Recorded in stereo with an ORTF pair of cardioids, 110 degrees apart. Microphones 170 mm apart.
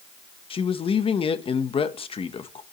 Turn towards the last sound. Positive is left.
turn(degrees=30)